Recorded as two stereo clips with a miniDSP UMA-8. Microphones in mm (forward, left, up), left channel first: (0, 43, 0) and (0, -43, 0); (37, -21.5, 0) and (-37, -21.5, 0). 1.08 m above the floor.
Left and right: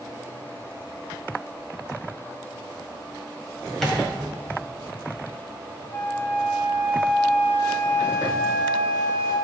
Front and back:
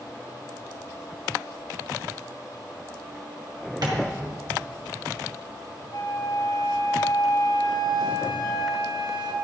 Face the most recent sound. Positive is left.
turn(degrees=20)